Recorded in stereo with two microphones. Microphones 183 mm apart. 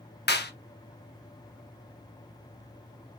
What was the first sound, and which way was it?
A clap, 65° left (ahead or behind).